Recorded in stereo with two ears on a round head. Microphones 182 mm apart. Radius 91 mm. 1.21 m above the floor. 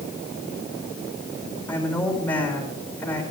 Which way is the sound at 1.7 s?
10° left (ahead or behind).